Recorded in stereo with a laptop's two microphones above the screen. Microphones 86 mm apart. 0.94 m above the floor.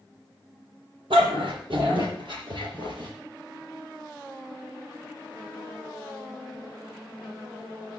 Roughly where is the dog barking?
Right.